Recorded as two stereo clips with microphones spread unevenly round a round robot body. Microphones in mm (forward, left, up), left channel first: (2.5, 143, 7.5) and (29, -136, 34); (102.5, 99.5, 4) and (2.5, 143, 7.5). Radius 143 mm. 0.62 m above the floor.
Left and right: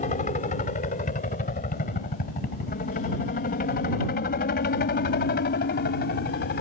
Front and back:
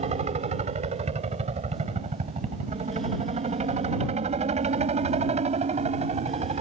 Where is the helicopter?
160° left; by 6.6 s 150° left.